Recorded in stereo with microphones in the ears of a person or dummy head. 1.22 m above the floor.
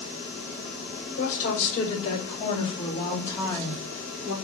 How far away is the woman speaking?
About 2.5 m.